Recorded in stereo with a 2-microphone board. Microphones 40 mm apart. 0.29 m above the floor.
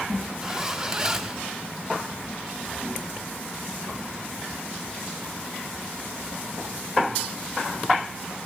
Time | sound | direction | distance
0.4 | a zipper | 15° right (ahead or behind) | 0.8 m